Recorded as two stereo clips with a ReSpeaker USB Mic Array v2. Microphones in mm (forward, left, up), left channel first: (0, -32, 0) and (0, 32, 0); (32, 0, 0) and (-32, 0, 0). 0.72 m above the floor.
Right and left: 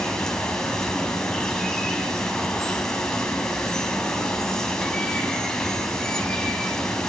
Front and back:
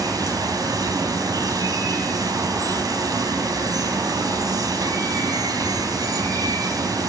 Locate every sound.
0.0 s running water: 170° right, 4 m